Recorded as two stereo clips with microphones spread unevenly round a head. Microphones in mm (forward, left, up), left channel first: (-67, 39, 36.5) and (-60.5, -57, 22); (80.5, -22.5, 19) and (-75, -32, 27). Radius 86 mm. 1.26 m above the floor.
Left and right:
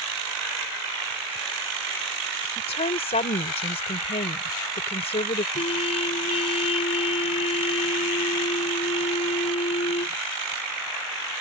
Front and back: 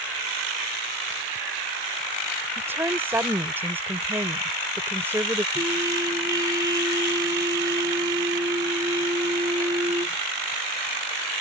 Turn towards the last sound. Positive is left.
turn(degrees=110)